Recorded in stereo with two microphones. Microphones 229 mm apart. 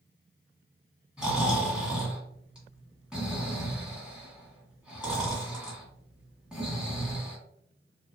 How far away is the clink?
No clink in this recording.